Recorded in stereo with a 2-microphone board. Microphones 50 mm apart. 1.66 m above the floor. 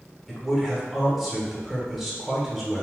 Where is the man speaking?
5° right (ahead or behind), 1.1 m.